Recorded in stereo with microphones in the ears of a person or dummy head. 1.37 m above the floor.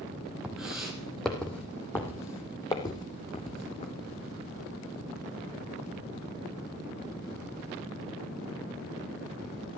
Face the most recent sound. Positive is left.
turn(degrees=35)  # may be behind; listen again after turning